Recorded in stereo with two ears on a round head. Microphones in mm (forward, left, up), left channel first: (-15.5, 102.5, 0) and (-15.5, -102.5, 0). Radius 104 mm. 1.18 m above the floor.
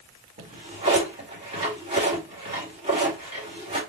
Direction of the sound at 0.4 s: 25° right (ahead or behind).